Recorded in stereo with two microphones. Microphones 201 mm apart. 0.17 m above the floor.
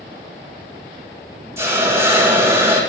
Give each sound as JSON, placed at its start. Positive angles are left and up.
{"t": 1.6, "sound": "a hiss", "side_deg": -15, "distance_m": 5.0}